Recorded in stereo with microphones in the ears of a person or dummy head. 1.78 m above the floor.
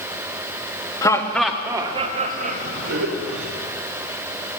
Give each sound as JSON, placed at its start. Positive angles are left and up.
{"t": 1.0, "sound": "laughter", "side_deg": 20, "distance_m": 0.7}